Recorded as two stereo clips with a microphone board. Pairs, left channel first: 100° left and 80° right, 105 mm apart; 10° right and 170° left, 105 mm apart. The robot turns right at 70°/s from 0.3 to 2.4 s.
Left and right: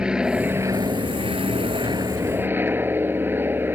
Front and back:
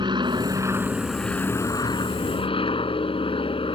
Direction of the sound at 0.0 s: 160° right.